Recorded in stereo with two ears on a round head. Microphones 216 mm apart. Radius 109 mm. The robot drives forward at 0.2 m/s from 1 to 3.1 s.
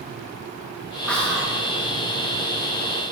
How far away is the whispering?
About 0.8 m.